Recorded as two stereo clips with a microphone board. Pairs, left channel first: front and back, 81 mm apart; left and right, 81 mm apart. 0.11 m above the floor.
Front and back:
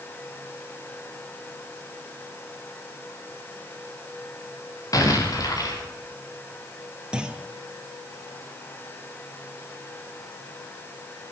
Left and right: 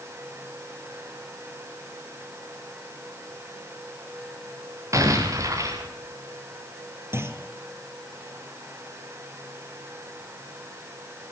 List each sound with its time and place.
4.9 s an explosion: 40° right, 6.5 m
7.1 s a clunk: 110° right, 1.5 m